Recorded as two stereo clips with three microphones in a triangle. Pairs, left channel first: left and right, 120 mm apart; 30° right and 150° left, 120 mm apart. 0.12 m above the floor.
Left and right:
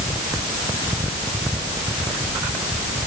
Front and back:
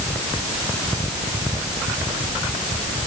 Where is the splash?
No splash in this recording.